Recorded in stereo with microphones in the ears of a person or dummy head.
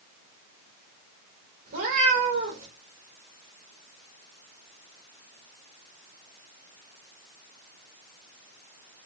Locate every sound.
1.7 s a cat meowing: 45° right (ahead or behind), 2.0 m